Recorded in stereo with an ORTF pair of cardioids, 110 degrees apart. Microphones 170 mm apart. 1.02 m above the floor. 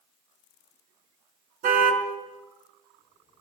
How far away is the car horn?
About 4.5 m.